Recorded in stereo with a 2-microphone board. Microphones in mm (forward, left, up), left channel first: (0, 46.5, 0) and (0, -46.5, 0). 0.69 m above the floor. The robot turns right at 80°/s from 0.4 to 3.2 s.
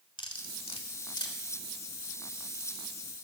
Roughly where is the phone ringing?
No phone ringing in this recording.